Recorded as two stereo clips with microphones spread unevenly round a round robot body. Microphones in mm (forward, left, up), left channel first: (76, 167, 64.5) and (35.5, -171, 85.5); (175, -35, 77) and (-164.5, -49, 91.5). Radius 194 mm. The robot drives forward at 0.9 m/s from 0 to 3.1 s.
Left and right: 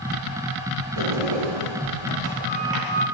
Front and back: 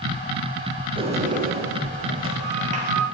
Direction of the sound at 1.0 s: 105° right.